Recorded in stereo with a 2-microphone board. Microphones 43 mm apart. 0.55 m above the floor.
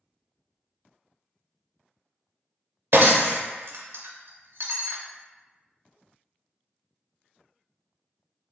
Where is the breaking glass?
65° right (ahead or behind), 0.7 m.